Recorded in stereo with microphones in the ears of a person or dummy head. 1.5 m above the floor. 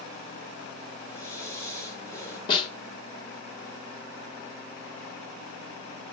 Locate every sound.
1.1 s breathing: 10° left (ahead or behind), 6.5 m
2.5 s a snare drum: 30° left (ahead or behind), 1.6 m